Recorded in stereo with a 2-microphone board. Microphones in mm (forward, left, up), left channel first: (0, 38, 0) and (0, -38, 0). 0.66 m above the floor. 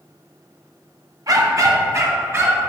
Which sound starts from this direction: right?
A dog barking, at 1.3 s.